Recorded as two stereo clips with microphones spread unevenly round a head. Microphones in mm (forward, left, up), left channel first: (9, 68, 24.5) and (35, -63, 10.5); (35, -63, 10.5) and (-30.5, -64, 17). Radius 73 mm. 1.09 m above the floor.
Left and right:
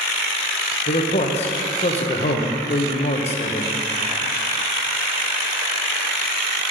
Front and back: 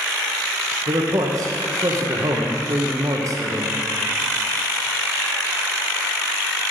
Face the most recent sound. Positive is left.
turn(degrees=140)